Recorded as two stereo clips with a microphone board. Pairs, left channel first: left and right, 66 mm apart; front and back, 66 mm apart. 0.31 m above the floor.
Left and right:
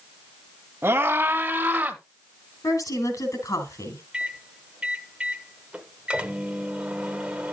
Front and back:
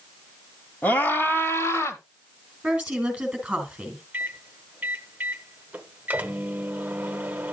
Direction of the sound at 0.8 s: 55° right.